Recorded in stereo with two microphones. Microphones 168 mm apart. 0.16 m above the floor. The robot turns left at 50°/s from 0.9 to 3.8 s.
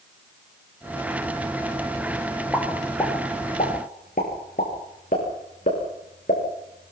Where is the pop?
5° right (ahead or behind), 7.5 m; by 6.9 s 55° left (ahead or behind), 7.5 m.